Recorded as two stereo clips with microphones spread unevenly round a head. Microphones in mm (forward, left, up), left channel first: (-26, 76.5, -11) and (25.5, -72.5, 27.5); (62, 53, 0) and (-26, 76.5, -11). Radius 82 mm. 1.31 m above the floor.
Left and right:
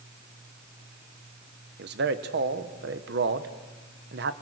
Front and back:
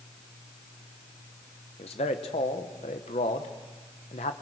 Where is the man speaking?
45° right, 1.2 m.